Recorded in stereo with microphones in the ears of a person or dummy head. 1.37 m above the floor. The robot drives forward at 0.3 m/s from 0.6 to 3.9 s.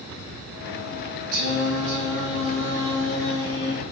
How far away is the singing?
About 0.9 m.